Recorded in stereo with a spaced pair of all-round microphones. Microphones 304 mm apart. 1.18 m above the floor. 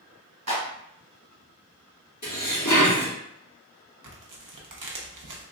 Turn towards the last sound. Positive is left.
turn(degrees=-70)  # may be behind; listen again after turning